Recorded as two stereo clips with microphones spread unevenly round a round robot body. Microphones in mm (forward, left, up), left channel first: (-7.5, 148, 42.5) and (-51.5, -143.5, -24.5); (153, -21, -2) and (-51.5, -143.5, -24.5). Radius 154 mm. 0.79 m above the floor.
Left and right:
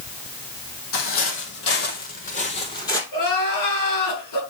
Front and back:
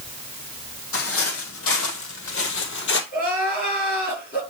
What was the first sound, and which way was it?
Footsteps, 50° left.